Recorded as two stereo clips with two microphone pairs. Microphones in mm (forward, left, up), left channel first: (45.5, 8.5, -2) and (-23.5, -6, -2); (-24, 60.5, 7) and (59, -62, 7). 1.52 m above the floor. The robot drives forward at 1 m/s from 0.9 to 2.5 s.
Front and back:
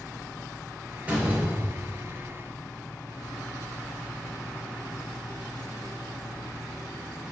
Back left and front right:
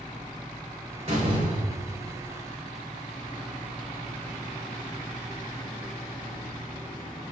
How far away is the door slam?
About 3.5 m.